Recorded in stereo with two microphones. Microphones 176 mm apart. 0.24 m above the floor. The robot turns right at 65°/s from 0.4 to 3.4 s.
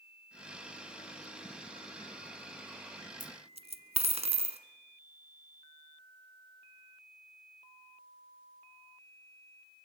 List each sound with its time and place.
3.2 s a dropped coin: 50° right (ahead or behind), 1.4 m; by 4.6 s 35° right (ahead or behind), 1.4 m